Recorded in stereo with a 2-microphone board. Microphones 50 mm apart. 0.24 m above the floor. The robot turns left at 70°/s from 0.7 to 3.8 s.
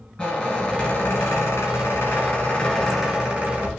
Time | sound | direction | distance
0.2 | a squeak | 155° left | 1.5 m